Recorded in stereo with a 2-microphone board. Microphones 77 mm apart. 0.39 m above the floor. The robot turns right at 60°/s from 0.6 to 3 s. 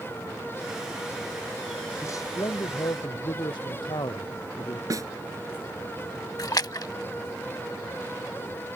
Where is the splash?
55° left (ahead or behind).